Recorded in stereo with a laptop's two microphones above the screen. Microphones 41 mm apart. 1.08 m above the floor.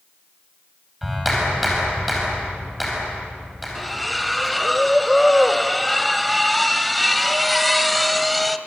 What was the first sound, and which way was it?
A clap, centre (ahead or behind).